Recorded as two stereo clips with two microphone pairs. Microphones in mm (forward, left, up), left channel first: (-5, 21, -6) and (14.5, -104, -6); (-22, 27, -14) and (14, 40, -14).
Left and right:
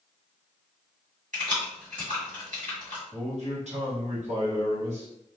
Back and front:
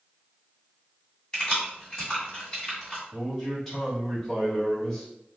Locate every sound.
1.3 s keys jangling: 90° right, 1.7 m
3.1 s a man speaking: 75° right, 1.4 m